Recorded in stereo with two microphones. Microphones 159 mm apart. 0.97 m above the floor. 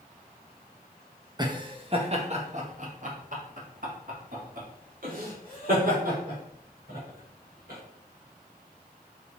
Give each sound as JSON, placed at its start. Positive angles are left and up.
{"t": 1.4, "sound": "laughter", "side_deg": -25, "distance_m": 1.2}